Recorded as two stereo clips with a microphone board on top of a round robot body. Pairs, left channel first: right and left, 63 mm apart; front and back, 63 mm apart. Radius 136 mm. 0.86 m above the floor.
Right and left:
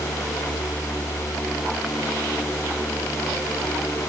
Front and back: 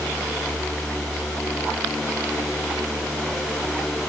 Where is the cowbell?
No cowbell in this recording.